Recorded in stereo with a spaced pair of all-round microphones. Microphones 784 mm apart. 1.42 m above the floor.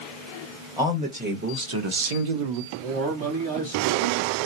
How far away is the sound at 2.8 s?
About 3 m.